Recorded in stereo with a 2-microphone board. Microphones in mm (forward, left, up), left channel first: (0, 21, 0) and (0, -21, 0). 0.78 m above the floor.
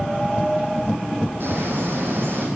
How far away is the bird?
About 9 m.